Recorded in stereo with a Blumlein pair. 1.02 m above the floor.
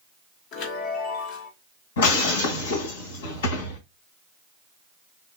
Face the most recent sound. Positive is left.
turn(degrees=60)